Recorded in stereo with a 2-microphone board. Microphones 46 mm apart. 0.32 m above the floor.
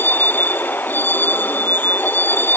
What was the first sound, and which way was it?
A vehicle, 45° left (ahead or behind).